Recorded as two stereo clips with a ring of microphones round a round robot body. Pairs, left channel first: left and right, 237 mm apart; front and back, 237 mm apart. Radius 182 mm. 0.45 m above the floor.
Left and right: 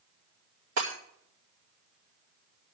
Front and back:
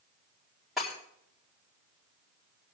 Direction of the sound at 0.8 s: 90° right.